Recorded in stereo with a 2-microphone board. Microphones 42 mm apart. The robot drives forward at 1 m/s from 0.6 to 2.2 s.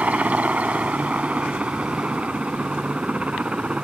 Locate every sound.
0.0 s a helicopter: 35° right (ahead or behind); by 3.9 s 30° right (ahead or behind)